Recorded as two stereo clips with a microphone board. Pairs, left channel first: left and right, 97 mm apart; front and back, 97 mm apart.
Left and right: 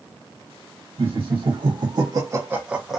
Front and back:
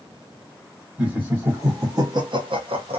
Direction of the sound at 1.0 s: 105° right.